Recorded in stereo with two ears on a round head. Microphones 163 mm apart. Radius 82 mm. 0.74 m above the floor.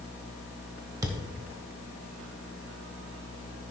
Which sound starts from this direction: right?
A thud, at 1.0 s.